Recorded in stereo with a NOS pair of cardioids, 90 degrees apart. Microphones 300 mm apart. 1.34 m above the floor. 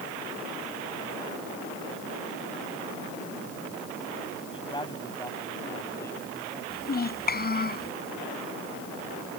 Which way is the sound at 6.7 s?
30° left.